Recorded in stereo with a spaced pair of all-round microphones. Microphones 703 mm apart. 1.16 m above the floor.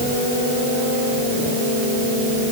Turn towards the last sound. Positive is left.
No sound to turn to.